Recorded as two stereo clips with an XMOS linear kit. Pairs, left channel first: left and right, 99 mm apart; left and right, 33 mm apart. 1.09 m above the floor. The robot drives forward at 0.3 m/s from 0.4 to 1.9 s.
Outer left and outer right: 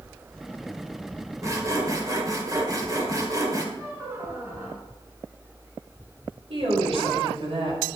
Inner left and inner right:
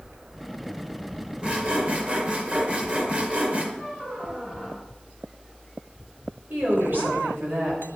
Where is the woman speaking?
80° right, 6 m.